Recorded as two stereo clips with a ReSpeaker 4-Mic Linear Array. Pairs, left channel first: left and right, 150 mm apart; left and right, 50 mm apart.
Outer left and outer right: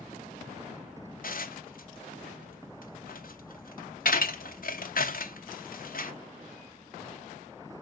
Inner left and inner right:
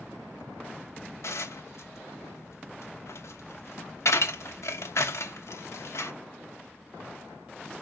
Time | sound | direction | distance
1.2 | dishes clattering | 70° left (ahead or behind) | 0.8 m